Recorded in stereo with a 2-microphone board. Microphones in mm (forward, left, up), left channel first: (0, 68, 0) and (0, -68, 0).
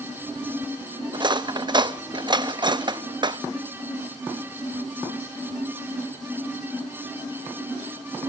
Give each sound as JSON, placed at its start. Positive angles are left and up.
{"t": 1.1, "sound": "cutlery clinking", "side_deg": -35, "distance_m": 0.5}